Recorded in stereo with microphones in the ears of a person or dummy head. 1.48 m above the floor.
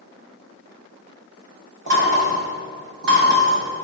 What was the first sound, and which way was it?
Knocking, 70° right (ahead or behind).